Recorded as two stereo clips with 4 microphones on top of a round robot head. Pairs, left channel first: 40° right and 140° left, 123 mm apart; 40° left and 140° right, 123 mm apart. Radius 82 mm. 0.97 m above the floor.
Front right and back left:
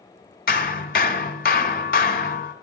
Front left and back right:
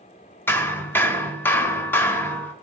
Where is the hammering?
35° right, 1.1 m.